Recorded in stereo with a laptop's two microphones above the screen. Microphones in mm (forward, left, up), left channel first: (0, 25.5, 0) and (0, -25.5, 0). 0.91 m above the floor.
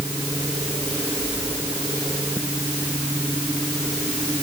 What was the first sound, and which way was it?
Only background noise.